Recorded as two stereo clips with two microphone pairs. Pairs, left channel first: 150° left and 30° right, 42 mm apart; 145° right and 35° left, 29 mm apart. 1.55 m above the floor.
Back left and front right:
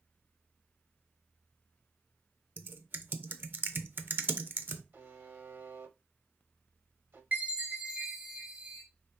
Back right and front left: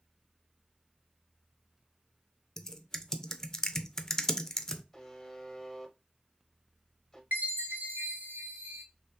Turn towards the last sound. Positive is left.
turn(degrees=25)